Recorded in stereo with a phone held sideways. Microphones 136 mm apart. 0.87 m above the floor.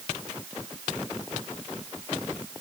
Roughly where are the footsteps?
No footsteps in this recording.